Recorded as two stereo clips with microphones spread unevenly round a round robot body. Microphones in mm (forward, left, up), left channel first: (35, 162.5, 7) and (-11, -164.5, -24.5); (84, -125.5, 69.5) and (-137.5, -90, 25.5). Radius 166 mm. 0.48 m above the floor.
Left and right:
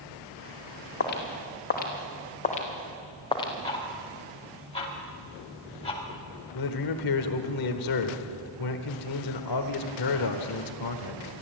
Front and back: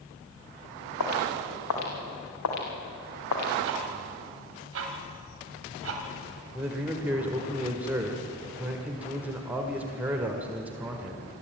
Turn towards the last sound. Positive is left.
turn(degrees=95)